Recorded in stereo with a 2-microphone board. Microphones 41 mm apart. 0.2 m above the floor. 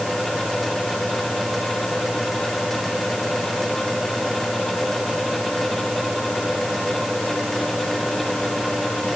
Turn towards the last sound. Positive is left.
No sound to turn to.